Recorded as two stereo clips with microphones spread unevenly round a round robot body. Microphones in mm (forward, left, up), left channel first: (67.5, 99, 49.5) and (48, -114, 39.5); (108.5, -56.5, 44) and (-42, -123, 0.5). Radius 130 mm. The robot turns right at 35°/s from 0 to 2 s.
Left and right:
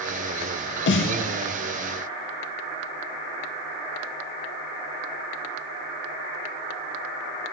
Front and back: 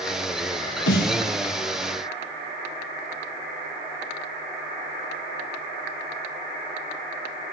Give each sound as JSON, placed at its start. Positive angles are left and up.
{"t": 0.9, "sound": "a snare drum", "azimuth_deg": 45, "distance_m": 0.7}